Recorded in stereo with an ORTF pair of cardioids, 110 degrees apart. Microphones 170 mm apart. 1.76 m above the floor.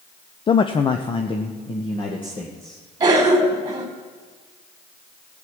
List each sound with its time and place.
0.5 s a man speaking: 30° left, 0.6 m; by 2.8 s 25° left, 2.5 m
3.0 s a cough: 25° right, 3.5 m